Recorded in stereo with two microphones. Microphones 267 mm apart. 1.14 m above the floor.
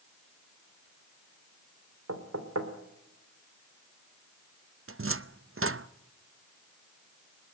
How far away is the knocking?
About 2.5 m.